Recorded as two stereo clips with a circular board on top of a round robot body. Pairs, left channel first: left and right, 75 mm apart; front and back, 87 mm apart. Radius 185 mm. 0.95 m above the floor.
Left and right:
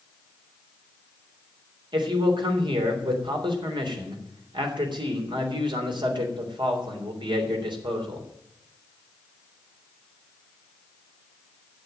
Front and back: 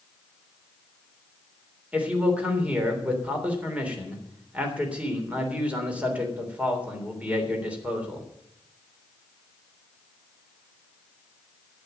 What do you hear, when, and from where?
1.9 s a man speaking: 105° right, 3.5 m